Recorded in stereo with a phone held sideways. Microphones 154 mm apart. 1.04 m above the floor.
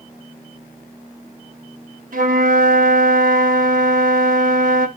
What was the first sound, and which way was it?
A flute, 60° right (ahead or behind).